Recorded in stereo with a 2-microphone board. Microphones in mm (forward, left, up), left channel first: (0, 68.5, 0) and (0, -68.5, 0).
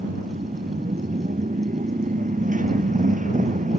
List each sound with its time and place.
0.0 s a motorcycle: 75° right (ahead or behind); by 3.8 s 70° right (ahead or behind)